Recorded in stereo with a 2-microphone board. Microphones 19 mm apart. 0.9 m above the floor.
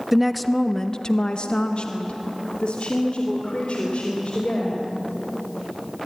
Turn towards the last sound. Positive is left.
turn(degrees=75)  # may be behind; listen again after turning